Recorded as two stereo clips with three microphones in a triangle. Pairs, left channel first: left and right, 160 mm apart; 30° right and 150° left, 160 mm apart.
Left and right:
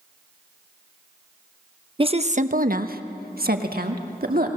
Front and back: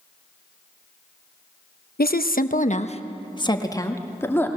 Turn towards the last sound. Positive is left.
turn(degrees=-105)